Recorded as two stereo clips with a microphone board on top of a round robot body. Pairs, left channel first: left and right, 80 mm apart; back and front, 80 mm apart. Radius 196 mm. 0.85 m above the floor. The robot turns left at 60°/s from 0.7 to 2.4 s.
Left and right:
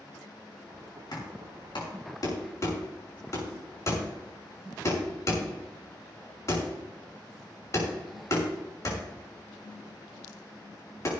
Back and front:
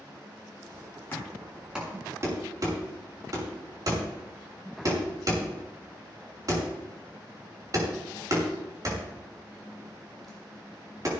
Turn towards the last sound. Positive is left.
turn(degrees=45)